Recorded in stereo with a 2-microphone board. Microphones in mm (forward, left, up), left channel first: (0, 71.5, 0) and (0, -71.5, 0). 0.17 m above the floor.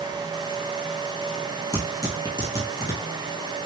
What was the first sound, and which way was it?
Tearing paper, 30° left (ahead or behind).